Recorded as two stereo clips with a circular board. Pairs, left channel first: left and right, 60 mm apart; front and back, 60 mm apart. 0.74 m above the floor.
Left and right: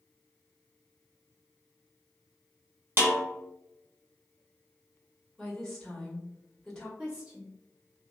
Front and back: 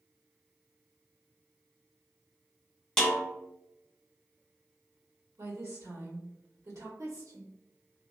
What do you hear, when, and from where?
3.0 s a snare drum: 75° right, 1.0 m
5.4 s a woman speaking: 170° left, 1.4 m
7.0 s a woman speaking: 160° right, 1.1 m